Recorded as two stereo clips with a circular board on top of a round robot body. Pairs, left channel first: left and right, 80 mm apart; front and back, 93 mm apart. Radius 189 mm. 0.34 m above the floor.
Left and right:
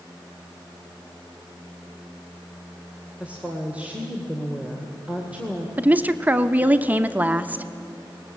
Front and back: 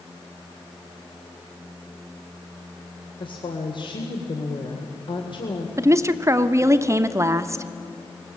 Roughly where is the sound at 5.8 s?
Behind right.